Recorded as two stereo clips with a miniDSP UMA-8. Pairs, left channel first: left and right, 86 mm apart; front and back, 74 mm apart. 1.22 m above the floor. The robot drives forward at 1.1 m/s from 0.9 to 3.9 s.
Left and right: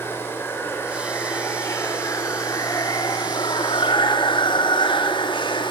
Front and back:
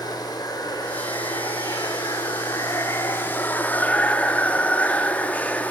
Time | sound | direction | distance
0.0 | running water | 25° left | 4.5 m